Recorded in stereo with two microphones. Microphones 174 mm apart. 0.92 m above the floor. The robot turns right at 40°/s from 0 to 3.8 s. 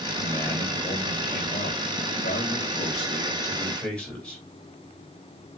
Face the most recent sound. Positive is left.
turn(degrees=175)